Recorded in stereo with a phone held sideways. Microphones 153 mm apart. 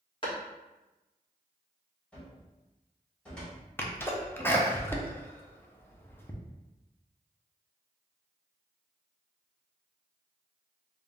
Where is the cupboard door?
5° left (ahead or behind), 1.6 m.